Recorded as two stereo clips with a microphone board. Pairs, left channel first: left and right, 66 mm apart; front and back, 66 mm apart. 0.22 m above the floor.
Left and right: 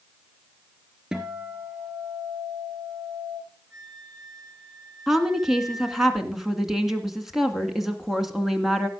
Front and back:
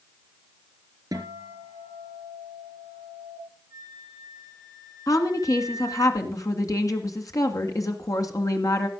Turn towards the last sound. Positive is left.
turn(degrees=-5)